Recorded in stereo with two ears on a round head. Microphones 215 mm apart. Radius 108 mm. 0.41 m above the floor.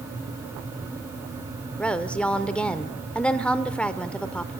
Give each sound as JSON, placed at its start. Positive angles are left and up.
{"t": 1.8, "sound": "a woman speaking", "side_deg": 5, "distance_m": 0.8}